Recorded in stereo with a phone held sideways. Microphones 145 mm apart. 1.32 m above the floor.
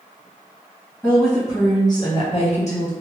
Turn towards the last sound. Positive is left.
turn(degrees=60)  # may be behind; listen again after turning